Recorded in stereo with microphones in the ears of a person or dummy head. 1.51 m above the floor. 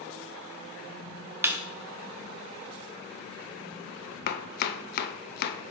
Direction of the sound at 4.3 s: 55° left (ahead or behind).